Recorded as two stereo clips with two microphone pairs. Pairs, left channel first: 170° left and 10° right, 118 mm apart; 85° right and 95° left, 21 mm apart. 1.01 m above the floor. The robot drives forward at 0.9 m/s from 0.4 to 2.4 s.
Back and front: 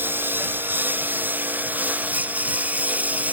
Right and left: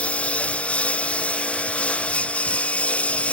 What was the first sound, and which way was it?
A lawn mower, 85° right.